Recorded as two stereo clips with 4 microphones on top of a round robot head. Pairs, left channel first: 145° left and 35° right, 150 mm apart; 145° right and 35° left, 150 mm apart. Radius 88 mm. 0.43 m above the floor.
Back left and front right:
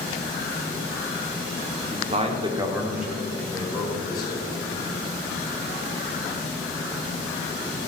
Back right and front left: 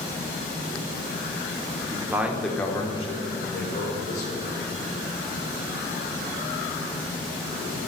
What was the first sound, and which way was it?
A man speaking, 25° right.